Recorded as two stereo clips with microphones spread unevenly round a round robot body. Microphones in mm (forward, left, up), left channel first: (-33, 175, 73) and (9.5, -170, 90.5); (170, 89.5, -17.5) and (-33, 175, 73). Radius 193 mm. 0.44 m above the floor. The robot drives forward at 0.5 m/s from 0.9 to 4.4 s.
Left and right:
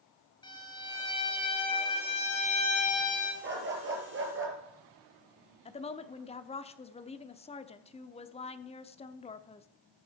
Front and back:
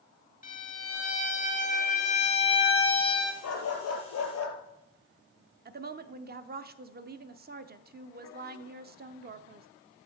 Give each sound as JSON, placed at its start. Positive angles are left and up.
{"t": 0.4, "sound": "a violin", "azimuth_deg": 20, "distance_m": 3.0}
{"t": 3.4, "sound": "a dog barking", "azimuth_deg": -20, "distance_m": 3.0}
{"t": 5.7, "sound": "a woman speaking", "azimuth_deg": 120, "distance_m": 0.8}